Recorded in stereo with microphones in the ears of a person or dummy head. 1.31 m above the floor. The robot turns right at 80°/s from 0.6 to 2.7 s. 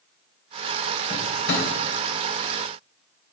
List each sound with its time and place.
1.1 s a drawer: 35° left (ahead or behind), 3 m; by 1.7 s 75° left (ahead or behind), 3 m